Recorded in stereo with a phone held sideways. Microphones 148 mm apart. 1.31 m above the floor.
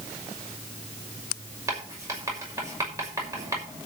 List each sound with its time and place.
1.7 s writing: 20° right (ahead or behind), 6 m